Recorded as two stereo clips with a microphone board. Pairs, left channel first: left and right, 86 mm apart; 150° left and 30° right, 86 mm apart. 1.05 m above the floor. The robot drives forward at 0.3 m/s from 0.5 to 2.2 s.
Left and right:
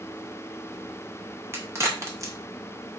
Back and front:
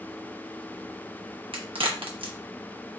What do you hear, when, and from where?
1.5 s a crack: 30° right, 1.0 m; by 2.3 s 35° right, 0.9 m